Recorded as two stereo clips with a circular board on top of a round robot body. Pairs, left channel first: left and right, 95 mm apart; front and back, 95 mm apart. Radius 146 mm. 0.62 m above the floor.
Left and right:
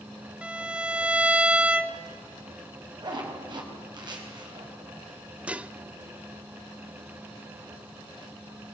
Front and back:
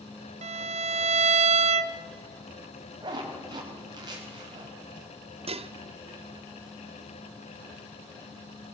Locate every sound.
0.4 s a violin: 170° right, 0.5 m
3.0 s a zipper: 135° right, 4.5 m
5.5 s dishes clattering: 170° right, 0.7 m